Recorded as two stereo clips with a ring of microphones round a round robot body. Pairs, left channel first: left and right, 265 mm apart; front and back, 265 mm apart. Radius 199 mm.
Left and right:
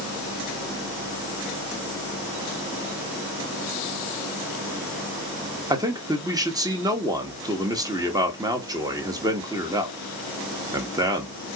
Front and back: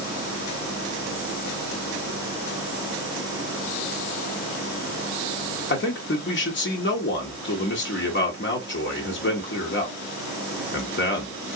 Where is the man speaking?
20° right, 1.4 m.